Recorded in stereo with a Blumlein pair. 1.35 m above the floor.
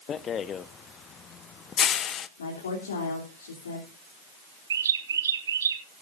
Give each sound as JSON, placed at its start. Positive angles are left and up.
{"t": 0.1, "sound": "a rattle", "azimuth_deg": 25, "distance_m": 0.6}
{"t": 2.4, "sound": "a woman speaking", "azimuth_deg": 65, "distance_m": 3.5}
{"t": 4.7, "sound": "a bird", "azimuth_deg": -65, "distance_m": 1.3}